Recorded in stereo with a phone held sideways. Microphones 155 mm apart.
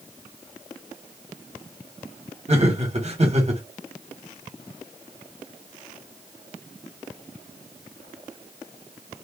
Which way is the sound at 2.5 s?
45° right (ahead or behind).